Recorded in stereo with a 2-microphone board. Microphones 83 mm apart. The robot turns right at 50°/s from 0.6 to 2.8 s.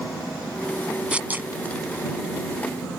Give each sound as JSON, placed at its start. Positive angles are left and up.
{"t": 1.1, "sound": "tearing paper", "side_deg": -15}